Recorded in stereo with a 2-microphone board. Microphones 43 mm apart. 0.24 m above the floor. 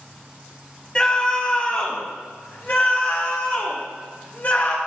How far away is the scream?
About 1.4 m.